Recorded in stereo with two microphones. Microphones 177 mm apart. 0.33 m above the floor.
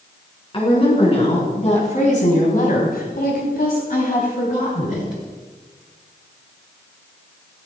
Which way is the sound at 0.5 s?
35° left (ahead or behind).